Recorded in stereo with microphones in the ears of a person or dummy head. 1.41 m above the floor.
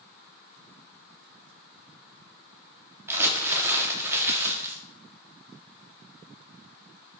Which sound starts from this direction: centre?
Crumpling, at 3.1 s.